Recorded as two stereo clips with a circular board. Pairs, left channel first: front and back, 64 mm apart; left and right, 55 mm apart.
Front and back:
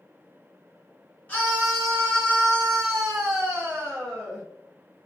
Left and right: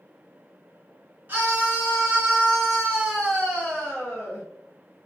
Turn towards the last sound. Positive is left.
turn(degrees=135)